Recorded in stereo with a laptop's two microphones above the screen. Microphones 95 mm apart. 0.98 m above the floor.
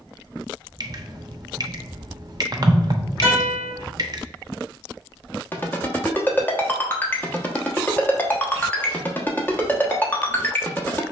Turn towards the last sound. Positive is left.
turn(degrees=20)  # may be behind; listen again after turning